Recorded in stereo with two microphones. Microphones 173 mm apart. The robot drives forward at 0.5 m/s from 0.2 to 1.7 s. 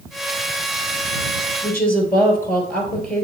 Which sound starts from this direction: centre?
A woman speaking, at 1.6 s.